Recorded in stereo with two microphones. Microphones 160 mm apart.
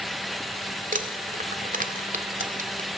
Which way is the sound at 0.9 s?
55° right (ahead or behind).